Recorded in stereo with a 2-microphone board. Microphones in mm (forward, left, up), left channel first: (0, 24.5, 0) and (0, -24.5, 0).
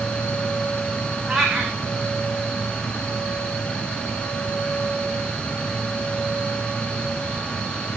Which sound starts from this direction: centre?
A cat meowing, at 1.3 s.